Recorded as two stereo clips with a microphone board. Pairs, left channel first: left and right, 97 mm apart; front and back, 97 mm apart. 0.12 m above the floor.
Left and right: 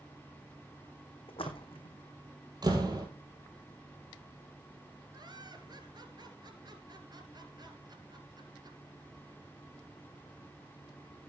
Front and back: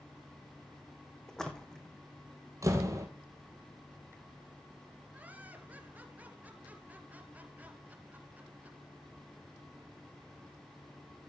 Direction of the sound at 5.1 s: 110° right.